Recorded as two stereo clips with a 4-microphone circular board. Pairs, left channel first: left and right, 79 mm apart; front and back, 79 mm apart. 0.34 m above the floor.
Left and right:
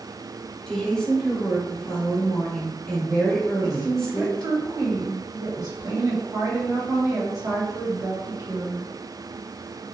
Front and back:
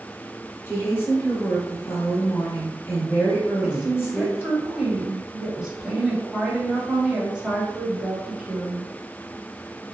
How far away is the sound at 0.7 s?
About 1.3 m.